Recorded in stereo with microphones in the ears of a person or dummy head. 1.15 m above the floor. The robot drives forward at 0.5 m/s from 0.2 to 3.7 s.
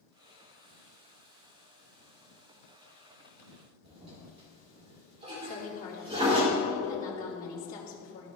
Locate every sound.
3.8 s a toilet flushing: 30° right (ahead or behind), 2.5 m
5.4 s a woman speaking: 45° left (ahead or behind), 2.5 m